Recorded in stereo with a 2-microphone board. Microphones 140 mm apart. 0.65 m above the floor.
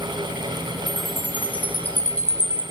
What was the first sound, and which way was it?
A chime, 10° left (ahead or behind).